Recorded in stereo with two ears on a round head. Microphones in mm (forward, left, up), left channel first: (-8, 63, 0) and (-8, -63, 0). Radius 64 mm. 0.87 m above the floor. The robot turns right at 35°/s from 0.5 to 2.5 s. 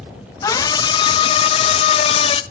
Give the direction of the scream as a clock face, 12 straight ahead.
11 o'clock.